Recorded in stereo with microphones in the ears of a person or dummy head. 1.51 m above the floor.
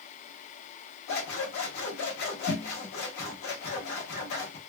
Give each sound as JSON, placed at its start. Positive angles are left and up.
{"t": 1.1, "sound": "scissors", "side_deg": 55, "distance_m": 1.1}